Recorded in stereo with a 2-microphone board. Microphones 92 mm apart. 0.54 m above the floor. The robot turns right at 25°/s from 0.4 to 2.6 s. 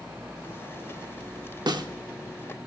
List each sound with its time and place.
1.7 s a snare drum: 50° right (ahead or behind), 0.5 m